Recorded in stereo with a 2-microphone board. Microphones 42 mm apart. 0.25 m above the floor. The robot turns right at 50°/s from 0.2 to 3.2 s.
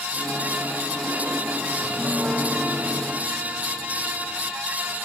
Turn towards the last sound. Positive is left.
turn(degrees=-115)